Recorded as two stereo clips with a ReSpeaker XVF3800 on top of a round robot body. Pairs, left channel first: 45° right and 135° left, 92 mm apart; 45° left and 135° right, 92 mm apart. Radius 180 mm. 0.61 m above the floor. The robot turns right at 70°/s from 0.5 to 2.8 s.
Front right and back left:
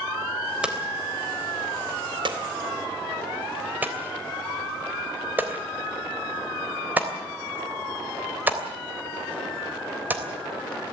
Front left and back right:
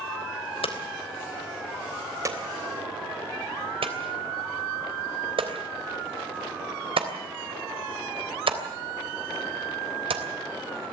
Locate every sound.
0.6 s hammering: 55° left, 3 m; by 10.2 s 155° right, 3 m